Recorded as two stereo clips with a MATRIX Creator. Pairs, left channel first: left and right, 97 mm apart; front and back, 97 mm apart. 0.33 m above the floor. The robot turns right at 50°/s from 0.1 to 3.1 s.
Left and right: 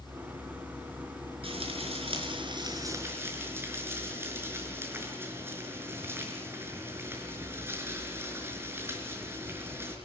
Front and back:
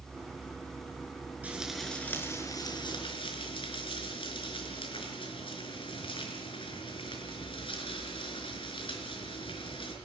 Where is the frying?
105° right, 5 m; by 10.0 s 25° right, 5 m.